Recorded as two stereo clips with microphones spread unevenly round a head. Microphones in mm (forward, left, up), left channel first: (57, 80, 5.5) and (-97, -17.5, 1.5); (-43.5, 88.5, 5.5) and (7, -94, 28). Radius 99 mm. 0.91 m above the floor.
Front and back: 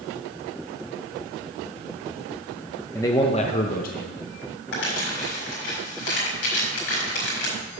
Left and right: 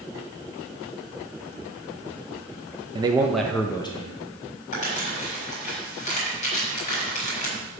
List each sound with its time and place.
3.0 s a man speaking: 30° right, 0.7 m; by 4.2 s 55° left, 1.1 m
4.7 s crumpling: 50° left, 5 m